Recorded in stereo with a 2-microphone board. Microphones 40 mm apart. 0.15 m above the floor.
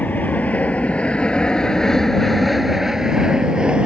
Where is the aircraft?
45° left (ahead or behind); by 3.9 s 25° right (ahead or behind).